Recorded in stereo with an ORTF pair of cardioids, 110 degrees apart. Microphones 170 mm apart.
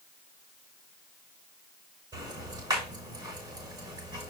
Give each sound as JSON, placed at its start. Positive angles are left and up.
{"t": 2.1, "sound": "ticking", "azimuth_deg": -25, "distance_m": 6.5}